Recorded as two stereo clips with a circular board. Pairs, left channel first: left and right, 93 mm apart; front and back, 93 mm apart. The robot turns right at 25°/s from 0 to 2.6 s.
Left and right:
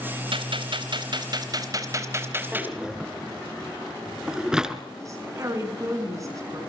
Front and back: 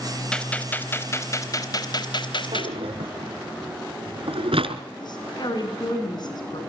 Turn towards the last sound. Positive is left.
turn(degrees=-35)